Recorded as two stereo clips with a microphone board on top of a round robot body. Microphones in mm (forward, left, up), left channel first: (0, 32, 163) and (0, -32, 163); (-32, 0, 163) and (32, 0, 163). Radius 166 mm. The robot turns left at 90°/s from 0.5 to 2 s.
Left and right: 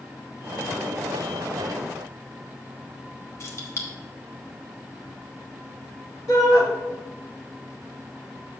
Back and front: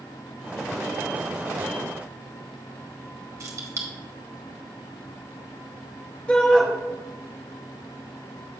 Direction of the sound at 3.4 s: 40° left.